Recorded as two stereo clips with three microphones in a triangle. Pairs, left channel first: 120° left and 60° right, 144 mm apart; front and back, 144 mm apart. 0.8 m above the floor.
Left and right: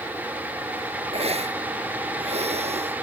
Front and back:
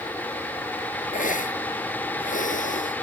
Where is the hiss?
20° right.